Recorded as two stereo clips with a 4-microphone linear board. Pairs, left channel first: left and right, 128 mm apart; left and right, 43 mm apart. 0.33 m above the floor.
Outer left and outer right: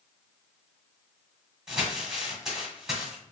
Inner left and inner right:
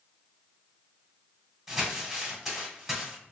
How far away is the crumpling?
About 1.4 m.